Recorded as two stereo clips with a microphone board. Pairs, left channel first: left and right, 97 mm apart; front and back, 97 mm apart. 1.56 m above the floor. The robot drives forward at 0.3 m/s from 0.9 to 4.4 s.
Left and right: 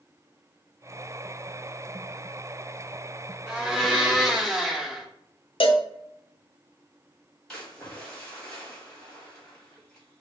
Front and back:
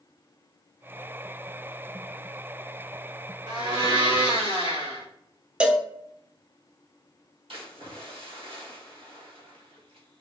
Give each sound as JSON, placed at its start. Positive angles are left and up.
{"t": 3.5, "sound": "a blender", "azimuth_deg": -170, "distance_m": 2.5}
{"t": 5.6, "sound": "a cowbell", "azimuth_deg": 105, "distance_m": 0.5}
{"t": 7.5, "sound": "a splash", "azimuth_deg": 175, "distance_m": 2.5}